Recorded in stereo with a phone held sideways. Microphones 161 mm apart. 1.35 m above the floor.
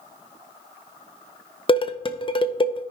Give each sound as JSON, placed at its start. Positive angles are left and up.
{"t": 1.7, "sound": "dishes clattering", "side_deg": 30, "distance_m": 0.6}